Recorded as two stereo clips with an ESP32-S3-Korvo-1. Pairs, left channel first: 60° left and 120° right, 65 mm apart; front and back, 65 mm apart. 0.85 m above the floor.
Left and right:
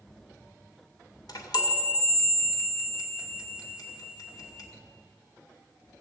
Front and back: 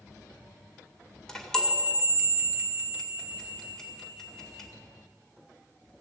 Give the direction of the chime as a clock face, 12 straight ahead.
9 o'clock.